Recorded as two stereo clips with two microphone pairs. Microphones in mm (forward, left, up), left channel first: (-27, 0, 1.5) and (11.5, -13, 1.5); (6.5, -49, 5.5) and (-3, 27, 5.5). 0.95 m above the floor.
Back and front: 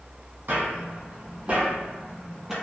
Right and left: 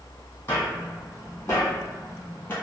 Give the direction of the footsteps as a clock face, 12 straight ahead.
1 o'clock.